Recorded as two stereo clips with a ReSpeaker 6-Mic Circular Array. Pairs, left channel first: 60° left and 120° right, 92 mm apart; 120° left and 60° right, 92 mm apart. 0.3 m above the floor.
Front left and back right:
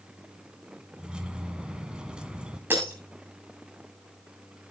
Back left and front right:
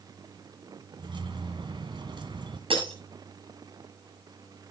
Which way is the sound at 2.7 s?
55° right.